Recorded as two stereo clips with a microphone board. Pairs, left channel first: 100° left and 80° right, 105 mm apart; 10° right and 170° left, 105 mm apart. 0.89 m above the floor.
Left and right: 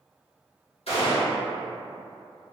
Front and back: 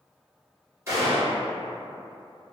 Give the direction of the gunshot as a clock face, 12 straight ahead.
8 o'clock.